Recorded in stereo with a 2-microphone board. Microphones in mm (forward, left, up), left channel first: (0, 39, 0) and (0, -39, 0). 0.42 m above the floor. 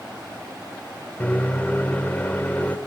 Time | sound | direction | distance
1.2 | a microwave | 20° left (ahead or behind) | 1.3 m